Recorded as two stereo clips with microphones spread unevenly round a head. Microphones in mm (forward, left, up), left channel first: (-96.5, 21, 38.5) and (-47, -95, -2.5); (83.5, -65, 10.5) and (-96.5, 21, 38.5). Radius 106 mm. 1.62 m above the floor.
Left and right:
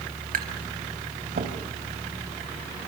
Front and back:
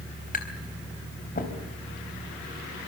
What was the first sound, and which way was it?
Tapping, 75° right.